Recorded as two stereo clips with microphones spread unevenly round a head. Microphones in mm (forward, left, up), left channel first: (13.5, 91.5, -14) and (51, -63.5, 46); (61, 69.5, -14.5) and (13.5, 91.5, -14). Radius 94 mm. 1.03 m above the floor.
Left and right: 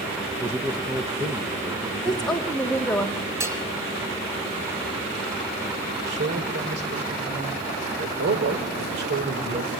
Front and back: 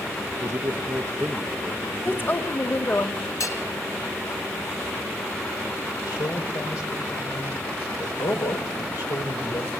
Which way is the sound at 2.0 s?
25° left.